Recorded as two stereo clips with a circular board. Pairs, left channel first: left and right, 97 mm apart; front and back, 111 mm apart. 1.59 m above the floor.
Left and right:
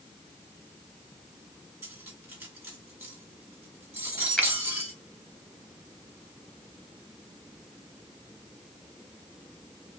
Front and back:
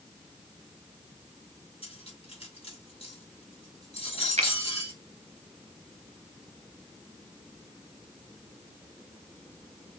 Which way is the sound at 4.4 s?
170° left.